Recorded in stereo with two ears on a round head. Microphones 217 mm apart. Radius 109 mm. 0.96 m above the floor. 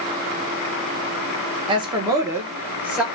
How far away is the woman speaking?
About 0.8 m.